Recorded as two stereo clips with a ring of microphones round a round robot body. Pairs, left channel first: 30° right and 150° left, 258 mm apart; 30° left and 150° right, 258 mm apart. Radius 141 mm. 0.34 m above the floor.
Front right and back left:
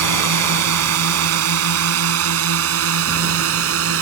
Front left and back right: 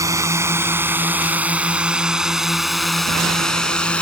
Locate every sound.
0.0 s a drone: 130° left; by 4.0 s 115° left